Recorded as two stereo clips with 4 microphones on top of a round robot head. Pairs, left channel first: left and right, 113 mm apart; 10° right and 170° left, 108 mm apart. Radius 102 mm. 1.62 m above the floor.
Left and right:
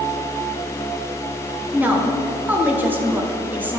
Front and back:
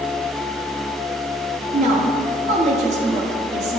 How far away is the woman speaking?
About 1.0 m.